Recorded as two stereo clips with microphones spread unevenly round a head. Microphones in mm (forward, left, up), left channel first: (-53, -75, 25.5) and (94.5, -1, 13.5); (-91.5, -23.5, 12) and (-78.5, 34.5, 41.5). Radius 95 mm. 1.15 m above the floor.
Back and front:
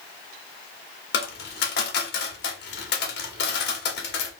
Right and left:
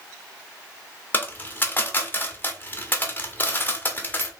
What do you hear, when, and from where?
1.1 s a dropped coin: 175° right, 1.1 m